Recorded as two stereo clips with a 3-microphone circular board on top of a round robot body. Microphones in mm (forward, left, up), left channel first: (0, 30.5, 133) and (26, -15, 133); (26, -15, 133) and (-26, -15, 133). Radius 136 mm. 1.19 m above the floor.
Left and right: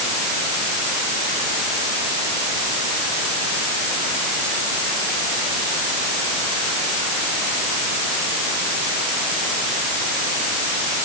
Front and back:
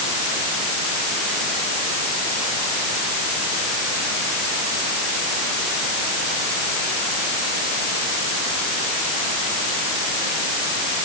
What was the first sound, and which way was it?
Only background noise.